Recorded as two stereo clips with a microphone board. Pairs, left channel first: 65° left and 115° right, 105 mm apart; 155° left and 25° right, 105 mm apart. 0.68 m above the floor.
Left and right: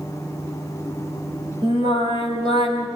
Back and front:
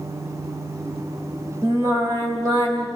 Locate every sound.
1.6 s singing: 75° right, 5 m